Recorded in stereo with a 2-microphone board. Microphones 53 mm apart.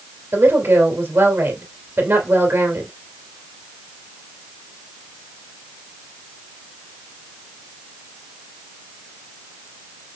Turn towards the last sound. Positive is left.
turn(degrees=-60)  # may be behind; listen again after turning